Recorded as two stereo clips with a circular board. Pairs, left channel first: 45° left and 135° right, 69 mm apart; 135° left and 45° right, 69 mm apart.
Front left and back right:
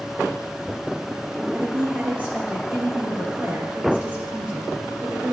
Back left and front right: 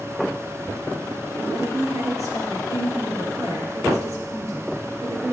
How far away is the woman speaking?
About 3 m.